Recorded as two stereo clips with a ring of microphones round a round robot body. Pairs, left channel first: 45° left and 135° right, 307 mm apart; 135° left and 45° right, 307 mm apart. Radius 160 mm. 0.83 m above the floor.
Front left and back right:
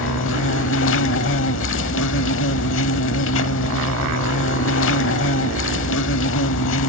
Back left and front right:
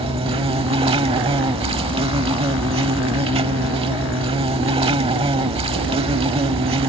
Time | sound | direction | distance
0.0 | an insect | 20° left | ?